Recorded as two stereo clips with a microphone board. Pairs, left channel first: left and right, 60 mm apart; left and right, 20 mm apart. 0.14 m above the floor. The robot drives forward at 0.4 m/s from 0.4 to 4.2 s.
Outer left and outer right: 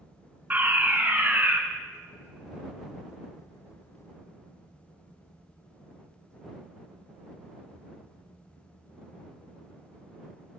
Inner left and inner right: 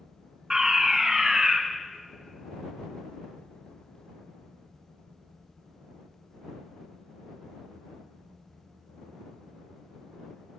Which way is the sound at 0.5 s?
30° right (ahead or behind).